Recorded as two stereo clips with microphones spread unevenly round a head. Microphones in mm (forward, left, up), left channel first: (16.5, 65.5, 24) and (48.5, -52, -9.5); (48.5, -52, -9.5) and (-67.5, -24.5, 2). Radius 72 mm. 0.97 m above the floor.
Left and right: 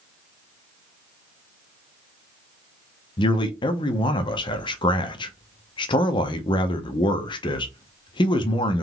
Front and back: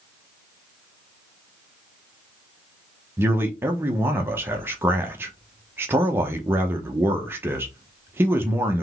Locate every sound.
3.2 s a man speaking: 115° left, 0.7 m